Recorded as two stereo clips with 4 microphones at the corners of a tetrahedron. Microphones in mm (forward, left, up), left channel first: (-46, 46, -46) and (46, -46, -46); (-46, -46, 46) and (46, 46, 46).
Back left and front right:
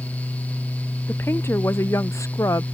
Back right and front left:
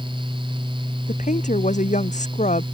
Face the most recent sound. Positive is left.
turn(degrees=-160)